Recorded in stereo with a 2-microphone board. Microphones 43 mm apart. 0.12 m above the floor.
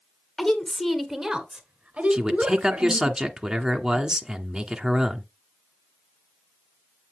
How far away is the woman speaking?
About 1.5 m.